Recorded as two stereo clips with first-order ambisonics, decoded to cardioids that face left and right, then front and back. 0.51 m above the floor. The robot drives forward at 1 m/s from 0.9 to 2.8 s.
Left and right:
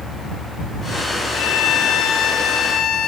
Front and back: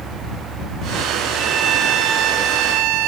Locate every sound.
1.3 s a violin: 110° left, 1.3 m; by 3.1 s 150° left, 2.5 m